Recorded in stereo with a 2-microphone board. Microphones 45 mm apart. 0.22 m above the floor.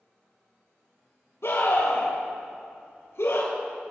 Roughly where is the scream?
Left.